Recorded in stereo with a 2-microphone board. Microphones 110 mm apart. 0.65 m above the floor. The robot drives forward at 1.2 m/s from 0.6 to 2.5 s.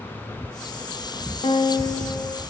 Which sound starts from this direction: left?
A guitar, at 1.4 s.